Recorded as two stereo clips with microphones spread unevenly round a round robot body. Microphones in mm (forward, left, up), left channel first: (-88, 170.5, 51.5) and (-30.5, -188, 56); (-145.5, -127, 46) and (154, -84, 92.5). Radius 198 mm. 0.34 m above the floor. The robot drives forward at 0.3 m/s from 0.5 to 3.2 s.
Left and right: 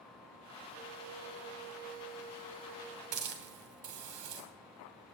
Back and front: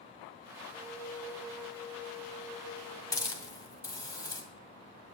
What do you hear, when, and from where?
0.7 s a flute: 90° right, 2.5 m; by 3.0 s 105° right, 2.5 m
3.1 s a hiss: 95° right, 2.5 m